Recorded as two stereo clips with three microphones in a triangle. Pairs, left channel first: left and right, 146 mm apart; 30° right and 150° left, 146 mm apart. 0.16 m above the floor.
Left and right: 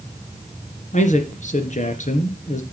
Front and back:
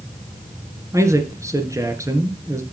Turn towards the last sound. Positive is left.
turn(degrees=85)